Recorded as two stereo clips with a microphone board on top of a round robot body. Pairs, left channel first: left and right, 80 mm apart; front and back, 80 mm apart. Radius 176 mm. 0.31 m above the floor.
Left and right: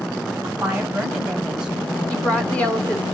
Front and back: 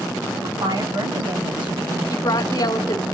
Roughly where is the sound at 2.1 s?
Ahead.